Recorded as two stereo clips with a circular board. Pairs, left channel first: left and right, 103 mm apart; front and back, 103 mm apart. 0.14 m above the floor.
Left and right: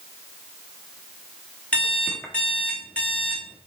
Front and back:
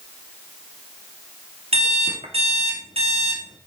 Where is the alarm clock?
170° left, 3.5 m.